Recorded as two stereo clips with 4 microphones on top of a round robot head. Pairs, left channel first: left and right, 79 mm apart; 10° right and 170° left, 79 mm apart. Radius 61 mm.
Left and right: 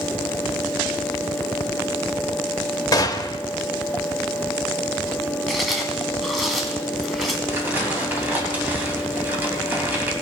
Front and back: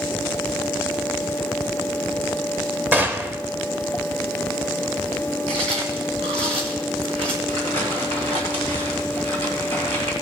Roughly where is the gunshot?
Left.